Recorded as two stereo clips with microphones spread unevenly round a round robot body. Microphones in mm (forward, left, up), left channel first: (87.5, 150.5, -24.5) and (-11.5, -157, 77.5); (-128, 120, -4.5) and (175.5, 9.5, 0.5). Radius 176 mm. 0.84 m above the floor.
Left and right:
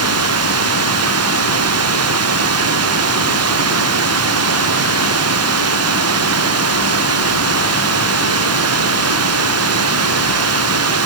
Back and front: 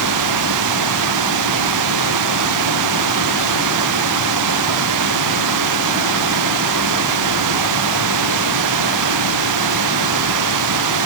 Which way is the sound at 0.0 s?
65° right.